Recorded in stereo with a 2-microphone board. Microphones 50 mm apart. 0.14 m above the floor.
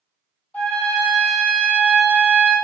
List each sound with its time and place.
0.5 s a trumpet: 30° left (ahead or behind), 1.2 m